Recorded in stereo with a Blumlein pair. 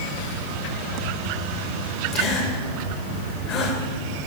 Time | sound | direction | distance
2.1 | a gasp | 35° left | 3.5 m